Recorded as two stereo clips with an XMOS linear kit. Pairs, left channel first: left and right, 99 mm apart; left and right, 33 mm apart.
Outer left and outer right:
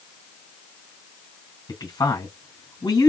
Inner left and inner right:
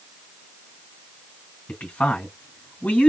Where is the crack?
No crack in this recording.